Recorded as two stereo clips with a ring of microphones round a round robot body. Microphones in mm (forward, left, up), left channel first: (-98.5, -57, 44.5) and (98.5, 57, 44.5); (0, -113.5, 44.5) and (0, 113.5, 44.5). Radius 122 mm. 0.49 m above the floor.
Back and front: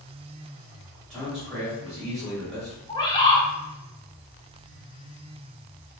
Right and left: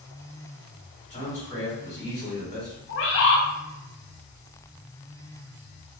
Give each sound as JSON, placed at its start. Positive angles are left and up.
{"t": 1.1, "sound": "a man speaking", "azimuth_deg": -65, "distance_m": 1.5}
{"t": 2.9, "sound": "a bird", "azimuth_deg": -80, "distance_m": 0.7}